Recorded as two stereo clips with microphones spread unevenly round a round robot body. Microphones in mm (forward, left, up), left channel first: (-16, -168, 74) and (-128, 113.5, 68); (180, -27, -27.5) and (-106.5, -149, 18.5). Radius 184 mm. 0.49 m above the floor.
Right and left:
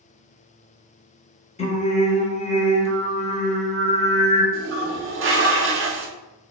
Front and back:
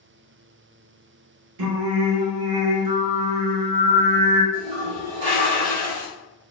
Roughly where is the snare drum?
No snare drum in this recording.